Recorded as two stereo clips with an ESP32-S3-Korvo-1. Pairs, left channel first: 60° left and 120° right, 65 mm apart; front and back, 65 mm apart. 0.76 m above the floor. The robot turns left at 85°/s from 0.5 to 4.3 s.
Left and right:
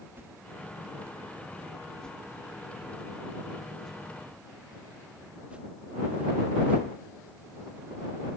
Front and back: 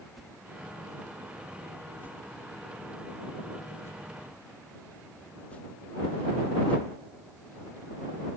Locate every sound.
0.2 s a whoosh: 95° right; by 6.8 s 55° right